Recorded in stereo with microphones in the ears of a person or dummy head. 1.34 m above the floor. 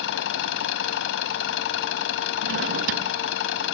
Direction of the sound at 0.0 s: 65° left (ahead or behind).